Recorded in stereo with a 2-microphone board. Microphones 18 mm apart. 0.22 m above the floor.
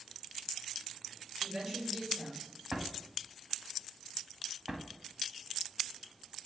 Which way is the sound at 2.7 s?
30° right (ahead or behind).